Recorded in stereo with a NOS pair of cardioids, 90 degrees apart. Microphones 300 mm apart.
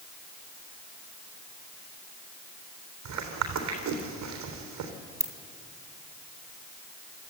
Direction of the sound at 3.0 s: 70° right.